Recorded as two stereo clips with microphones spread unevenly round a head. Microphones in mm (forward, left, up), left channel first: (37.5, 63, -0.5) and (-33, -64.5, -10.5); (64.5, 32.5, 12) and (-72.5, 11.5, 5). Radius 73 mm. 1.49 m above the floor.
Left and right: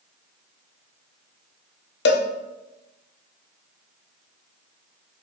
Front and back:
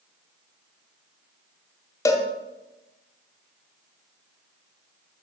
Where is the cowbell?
80° left, 0.5 m.